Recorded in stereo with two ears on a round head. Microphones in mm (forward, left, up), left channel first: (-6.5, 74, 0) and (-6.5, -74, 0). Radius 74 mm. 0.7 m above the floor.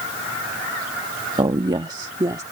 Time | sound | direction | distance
1.4 | a woman speaking | 25° right (ahead or behind) | ?